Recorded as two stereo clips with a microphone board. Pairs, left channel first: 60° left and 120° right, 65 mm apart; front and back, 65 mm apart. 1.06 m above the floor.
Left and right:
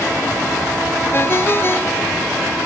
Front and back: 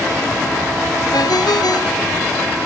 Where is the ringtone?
10° left.